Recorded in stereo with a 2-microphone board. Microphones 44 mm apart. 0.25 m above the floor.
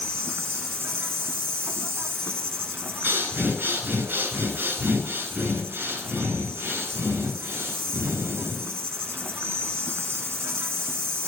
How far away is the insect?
About 0.9 m.